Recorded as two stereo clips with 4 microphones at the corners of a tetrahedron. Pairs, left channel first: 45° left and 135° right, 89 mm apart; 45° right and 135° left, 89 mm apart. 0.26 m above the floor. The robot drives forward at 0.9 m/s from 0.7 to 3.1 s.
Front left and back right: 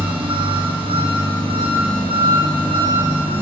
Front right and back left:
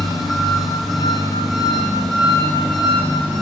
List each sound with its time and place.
0.0 s an engine running: 135° right, 9 m; by 3.4 s 145° right, 11 m